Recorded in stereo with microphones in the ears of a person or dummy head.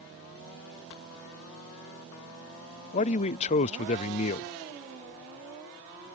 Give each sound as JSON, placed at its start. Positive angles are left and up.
{"t": 2.9, "sound": "a man speaking", "side_deg": 40}